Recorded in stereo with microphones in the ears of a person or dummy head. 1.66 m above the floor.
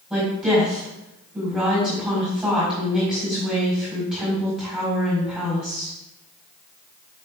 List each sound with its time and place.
0.1 s a woman speaking: 5° left (ahead or behind), 4.5 m